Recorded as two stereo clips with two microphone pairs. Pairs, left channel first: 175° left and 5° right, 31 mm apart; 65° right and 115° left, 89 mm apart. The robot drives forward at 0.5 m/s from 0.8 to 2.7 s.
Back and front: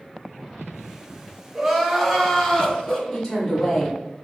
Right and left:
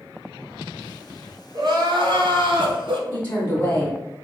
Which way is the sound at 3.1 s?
130° right.